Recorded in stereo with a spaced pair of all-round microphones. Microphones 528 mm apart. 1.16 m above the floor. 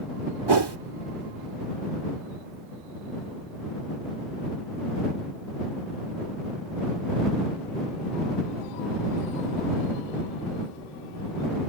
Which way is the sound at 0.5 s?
50° right (ahead or behind).